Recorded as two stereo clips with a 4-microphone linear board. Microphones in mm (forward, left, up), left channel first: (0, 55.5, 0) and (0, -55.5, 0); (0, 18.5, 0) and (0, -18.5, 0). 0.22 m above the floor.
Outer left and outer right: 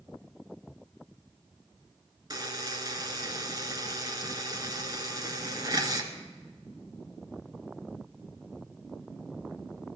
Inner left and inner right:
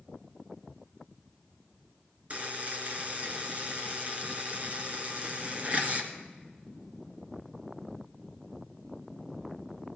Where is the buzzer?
35° right (ahead or behind), 1.5 m.